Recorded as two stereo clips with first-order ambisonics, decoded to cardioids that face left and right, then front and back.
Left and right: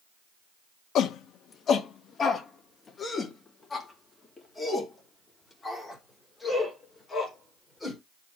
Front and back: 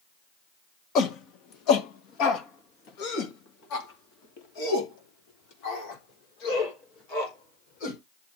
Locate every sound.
0.9 s a shout: 45° left, 1.2 m; by 8.0 s 10° left, 5 m